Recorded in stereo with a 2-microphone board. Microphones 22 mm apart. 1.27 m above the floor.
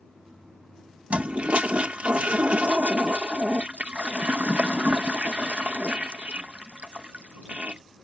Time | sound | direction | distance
1.1 | a toilet flushing | 65° right (ahead or behind) | ?